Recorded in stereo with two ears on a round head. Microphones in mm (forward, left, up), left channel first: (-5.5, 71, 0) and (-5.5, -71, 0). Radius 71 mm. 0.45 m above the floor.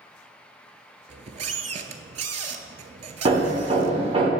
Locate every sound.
1.1 s a squeak: 45° right (ahead or behind), 0.5 m
3.2 s hammering: 35° right (ahead or behind), 1.0 m